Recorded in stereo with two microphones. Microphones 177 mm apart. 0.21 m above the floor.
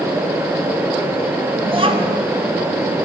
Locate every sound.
1.7 s a child speaking: 30° right (ahead or behind), 1.4 m